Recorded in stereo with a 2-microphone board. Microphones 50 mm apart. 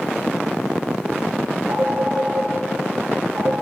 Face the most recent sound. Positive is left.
turn(degrees=-75)  # may be behind; listen again after turning